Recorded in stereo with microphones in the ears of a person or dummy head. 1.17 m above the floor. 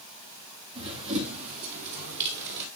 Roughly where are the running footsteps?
Right.